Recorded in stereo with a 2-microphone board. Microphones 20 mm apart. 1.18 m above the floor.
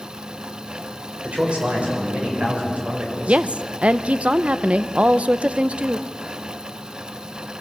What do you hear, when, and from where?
1.2 s a man speaking: 75° right (ahead or behind), 6 m
3.3 s a woman speaking: 70° right (ahead or behind), 0.7 m